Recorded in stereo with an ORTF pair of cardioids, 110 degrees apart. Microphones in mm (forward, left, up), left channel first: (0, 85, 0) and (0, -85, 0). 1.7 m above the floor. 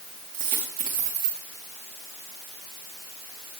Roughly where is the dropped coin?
Ahead right.